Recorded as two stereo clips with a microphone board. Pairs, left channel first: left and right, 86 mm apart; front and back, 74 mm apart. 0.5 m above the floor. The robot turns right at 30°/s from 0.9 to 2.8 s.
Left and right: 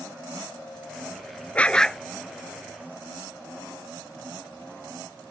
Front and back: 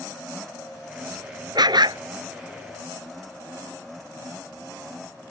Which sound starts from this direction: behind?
A dog barking, at 1.6 s.